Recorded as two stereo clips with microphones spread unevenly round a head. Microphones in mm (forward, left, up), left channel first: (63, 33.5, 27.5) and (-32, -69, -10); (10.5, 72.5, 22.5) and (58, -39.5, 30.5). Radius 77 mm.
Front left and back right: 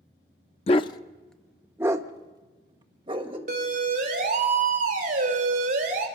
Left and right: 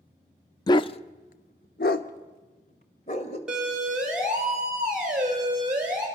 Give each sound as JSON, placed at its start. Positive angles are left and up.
{"t": 0.7, "sound": "a dog barking", "azimuth_deg": 60, "distance_m": 0.6}
{"t": 3.5, "sound": "a siren", "azimuth_deg": -150, "distance_m": 3.5}